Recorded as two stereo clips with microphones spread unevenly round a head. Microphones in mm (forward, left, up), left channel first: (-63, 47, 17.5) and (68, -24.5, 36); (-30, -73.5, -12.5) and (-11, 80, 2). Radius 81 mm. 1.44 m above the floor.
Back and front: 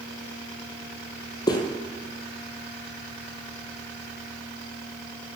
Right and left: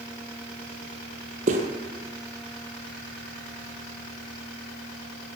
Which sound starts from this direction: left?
Footsteps, at 1.5 s.